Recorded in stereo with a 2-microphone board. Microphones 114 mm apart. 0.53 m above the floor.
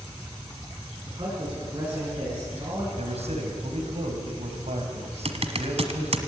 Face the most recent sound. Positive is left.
turn(degrees=-65)  # may be behind; listen again after turning